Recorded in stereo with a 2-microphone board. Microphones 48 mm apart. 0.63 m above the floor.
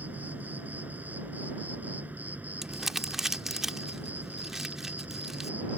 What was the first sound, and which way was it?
An insect, 40° right (ahead or behind).